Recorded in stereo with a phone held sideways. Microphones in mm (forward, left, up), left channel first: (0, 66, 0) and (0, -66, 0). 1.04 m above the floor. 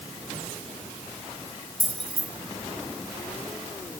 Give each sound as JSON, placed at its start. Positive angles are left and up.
{"t": 1.8, "sound": "keys jangling", "side_deg": -40, "distance_m": 2.5}